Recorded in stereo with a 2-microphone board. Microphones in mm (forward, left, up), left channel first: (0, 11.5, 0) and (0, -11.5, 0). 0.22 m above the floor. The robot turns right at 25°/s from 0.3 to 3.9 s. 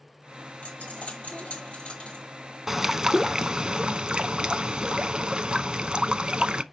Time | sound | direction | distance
0.6 | a dropped coin | 85° left | 1.3 m
2.7 | a bird | 165° right | 0.5 m